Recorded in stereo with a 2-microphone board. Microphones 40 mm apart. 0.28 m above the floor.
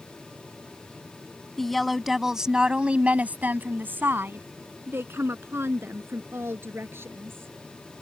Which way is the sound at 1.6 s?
10° left (ahead or behind).